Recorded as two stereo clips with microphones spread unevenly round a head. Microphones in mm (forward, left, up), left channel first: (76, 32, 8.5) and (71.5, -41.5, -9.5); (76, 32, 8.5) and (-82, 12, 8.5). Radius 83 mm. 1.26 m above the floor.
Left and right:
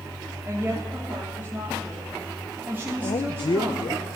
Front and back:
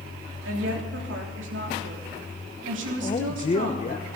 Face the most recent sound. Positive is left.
turn(degrees=60)